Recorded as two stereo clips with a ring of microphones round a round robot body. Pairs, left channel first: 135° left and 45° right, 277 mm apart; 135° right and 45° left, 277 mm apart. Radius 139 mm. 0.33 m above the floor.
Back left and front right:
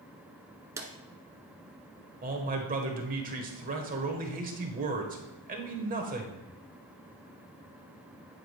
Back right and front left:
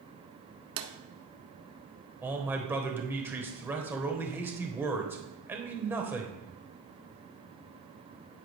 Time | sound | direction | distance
0.8 | a drawer | 35° left | 1.0 m
2.2 | a man speaking | 30° right | 1.2 m